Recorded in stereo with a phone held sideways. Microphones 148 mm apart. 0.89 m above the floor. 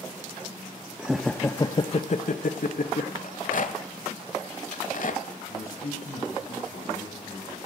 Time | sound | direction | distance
1.0 | laughter | 10° right (ahead or behind) | 0.6 m
3.2 | a rattle | 60° left (ahead or behind) | 1.1 m
5.5 | a man speaking | 85° left | 6 m